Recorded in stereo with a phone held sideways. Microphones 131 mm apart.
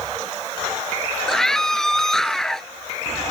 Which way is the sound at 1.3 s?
5° left (ahead or behind).